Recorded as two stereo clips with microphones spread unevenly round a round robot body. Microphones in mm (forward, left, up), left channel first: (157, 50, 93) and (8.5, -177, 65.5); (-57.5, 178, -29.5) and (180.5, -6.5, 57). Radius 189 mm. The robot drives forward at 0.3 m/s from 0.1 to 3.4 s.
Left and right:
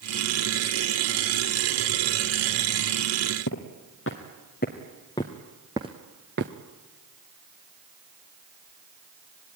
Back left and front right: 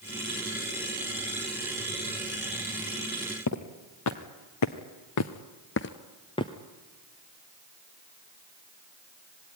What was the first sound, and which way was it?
Footsteps, 105° left.